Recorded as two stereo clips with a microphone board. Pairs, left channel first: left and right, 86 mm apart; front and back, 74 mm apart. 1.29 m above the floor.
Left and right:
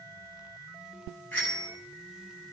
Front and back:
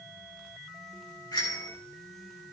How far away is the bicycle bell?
About 7 m.